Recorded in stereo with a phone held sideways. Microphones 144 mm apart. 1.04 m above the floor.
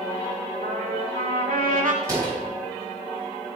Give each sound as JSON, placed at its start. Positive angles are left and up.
{"t": 0.6, "sound": "a trumpet", "side_deg": -70, "distance_m": 2.0}
{"t": 2.0, "sound": "a door slam", "side_deg": -20, "distance_m": 6.0}